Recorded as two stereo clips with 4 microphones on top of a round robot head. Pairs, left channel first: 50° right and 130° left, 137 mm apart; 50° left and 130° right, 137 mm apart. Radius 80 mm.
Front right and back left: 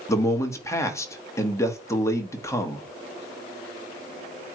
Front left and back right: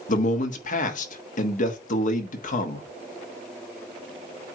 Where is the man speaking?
20° left, 1.4 m.